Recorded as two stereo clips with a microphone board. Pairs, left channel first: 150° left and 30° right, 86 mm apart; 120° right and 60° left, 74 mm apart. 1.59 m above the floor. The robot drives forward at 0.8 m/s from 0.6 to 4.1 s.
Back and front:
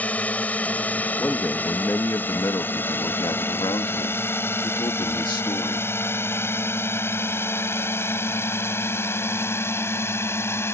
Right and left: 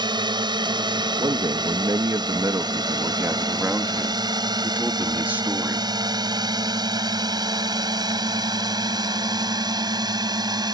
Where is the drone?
75° left; by 10.8 s 90° left.